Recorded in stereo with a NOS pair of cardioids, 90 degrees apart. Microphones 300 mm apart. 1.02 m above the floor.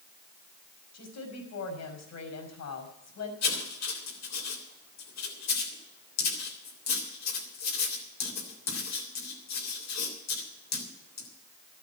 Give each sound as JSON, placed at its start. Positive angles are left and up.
{"t": 0.9, "sound": "a woman speaking", "azimuth_deg": 60, "distance_m": 5.5}
{"t": 3.4, "sound": "writing", "azimuth_deg": 60, "distance_m": 3.5}